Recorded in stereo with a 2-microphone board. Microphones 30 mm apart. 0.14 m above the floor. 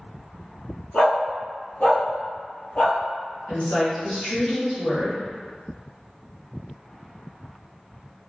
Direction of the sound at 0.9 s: 55° left (ahead or behind).